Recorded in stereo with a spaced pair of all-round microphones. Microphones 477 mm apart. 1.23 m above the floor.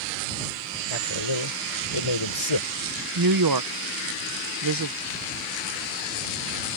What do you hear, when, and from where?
0.9 s a man speaking: 75° left (ahead or behind)
3.1 s a woman speaking: 45° right (ahead or behind)